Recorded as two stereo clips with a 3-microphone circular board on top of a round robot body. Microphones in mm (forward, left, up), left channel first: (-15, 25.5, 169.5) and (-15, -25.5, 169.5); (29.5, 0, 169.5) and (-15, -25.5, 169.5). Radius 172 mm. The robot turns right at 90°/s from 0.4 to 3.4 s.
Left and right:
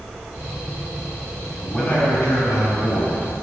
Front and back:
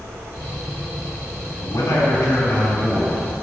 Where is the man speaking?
Straight ahead, 2.5 m; by 3.2 s 145° left, 2.5 m.